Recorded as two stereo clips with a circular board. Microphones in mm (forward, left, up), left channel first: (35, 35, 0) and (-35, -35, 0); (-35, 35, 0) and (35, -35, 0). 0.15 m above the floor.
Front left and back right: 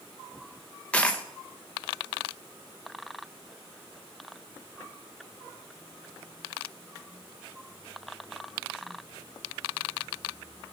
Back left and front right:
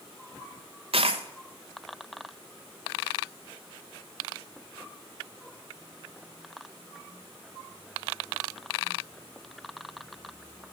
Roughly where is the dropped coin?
Ahead right.